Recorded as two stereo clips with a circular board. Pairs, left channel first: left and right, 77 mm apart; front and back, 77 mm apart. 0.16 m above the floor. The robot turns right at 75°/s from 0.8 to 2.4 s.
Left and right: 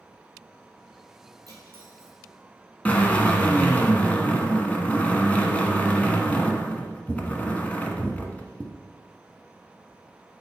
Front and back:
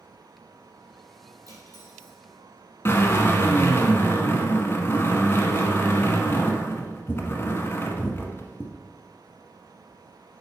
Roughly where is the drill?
Ahead left.